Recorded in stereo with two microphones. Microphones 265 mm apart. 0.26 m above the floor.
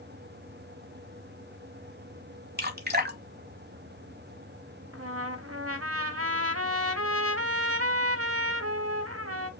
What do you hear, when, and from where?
2.6 s dripping: 35° right (ahead or behind), 0.9 m
4.9 s a trumpet: 60° right (ahead or behind), 0.6 m